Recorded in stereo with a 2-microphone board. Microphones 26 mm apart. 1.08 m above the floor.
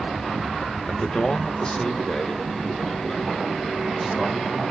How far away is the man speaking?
About 0.9 m.